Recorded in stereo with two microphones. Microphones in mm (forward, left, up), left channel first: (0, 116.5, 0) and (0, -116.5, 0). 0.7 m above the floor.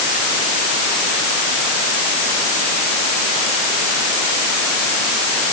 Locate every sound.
Only background noise.